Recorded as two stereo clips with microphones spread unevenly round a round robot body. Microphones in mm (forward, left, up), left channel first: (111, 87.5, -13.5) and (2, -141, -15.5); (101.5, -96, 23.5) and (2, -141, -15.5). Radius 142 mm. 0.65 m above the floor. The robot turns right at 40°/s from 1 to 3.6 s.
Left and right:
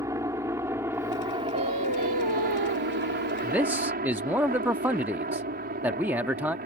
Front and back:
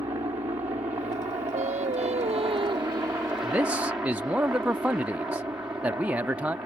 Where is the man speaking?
160° left; by 6.6 s 165° left.